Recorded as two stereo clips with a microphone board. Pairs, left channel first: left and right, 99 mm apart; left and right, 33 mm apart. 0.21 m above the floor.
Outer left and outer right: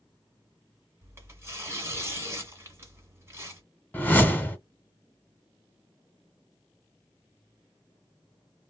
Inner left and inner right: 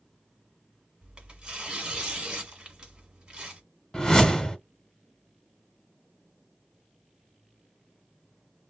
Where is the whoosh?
20° left (ahead or behind), 0.8 m.